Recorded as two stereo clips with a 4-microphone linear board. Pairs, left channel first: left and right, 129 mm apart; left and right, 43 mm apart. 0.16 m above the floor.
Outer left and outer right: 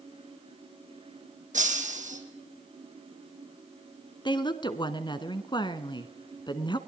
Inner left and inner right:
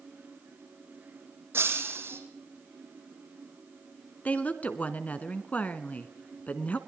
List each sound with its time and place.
1.5 s breaking glass: 75° right (ahead or behind), 4 m
4.2 s a woman speaking: 40° left (ahead or behind), 1.4 m